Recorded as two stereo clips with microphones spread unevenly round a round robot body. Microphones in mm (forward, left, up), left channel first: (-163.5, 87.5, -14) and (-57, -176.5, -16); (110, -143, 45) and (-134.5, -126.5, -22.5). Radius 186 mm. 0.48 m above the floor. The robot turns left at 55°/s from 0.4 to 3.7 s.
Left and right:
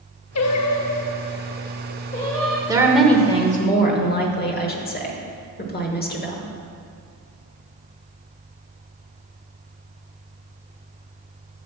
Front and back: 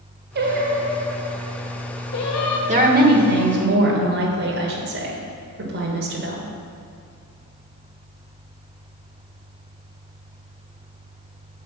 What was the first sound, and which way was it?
Singing, 140° left.